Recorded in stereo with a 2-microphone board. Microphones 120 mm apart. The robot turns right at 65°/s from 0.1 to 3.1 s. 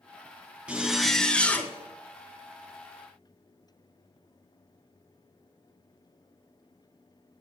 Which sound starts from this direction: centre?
A zipper, at 0.7 s.